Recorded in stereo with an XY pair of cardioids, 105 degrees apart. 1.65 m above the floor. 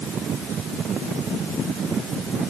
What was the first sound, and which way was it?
Only background noise.